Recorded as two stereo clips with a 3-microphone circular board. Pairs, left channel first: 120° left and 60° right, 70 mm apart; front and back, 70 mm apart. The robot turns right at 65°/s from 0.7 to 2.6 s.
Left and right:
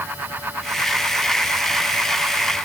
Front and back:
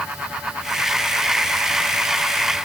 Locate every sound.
Only background noise.